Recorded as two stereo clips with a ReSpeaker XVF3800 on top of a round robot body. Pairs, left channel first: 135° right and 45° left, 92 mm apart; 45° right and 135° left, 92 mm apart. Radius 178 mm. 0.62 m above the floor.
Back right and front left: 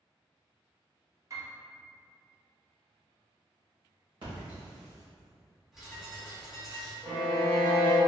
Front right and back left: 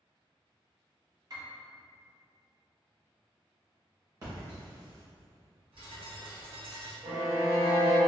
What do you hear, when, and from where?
1.3 s a piano: 95° left, 0.9 m
4.2 s a splash: 80° left, 0.9 m
5.7 s a bird: 130° left, 1.0 m
7.0 s a violin: 110° left, 0.9 m